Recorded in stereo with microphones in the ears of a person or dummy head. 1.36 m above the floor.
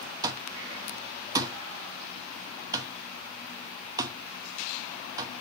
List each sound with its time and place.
0.2 s an alarm clock: 20° right (ahead or behind), 0.9 m